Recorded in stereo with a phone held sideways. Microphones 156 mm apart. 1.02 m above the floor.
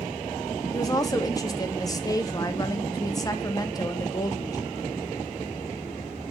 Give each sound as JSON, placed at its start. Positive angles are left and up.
{"t": 0.7, "sound": "a woman speaking", "side_deg": 25, "distance_m": 0.6}